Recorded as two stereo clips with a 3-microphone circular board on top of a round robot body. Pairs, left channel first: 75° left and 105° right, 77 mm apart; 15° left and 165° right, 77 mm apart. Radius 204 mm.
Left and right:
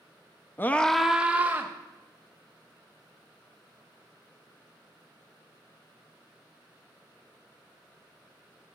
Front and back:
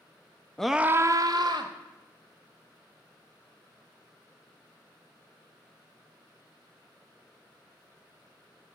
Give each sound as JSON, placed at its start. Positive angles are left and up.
{"t": 0.6, "sound": "a scream", "azimuth_deg": 85, "distance_m": 0.8}